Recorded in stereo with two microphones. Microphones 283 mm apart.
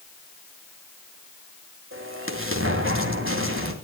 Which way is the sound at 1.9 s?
45° right (ahead or behind).